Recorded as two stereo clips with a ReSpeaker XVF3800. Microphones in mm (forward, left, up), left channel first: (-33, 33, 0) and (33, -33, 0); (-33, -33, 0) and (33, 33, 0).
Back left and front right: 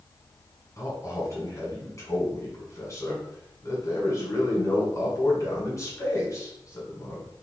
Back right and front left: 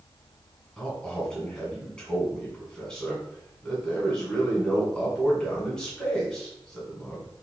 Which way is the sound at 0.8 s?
150° left.